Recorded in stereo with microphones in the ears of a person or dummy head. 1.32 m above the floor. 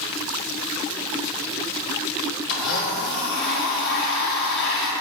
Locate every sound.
2.5 s a blender: 65° left (ahead or behind), 1.5 m